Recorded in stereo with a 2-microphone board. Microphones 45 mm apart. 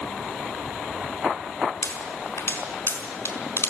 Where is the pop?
55° left (ahead or behind), 4.5 m.